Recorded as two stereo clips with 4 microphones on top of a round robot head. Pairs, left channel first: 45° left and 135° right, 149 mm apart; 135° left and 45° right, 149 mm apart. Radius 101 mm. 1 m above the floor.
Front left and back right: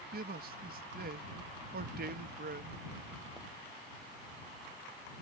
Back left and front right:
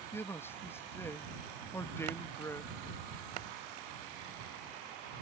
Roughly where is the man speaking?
Behind right.